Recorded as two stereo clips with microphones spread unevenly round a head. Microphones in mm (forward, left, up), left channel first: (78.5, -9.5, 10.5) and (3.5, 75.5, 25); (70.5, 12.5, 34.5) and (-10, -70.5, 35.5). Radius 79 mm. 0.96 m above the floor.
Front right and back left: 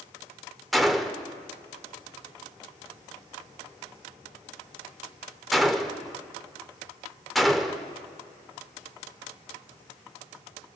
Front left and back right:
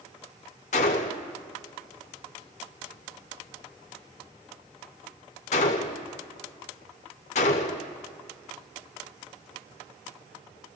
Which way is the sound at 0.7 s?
45° left.